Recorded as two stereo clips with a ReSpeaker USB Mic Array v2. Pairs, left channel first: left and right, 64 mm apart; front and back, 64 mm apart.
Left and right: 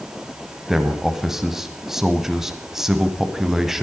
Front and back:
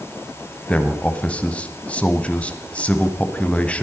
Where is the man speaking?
20° right, 1.0 m.